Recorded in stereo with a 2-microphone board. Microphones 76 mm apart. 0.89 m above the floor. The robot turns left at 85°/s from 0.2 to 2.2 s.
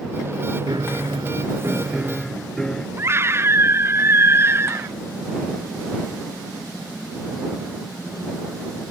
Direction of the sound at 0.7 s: 60° right.